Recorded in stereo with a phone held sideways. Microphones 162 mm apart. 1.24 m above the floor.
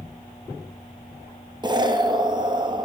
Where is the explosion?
30° right (ahead or behind), 0.5 m.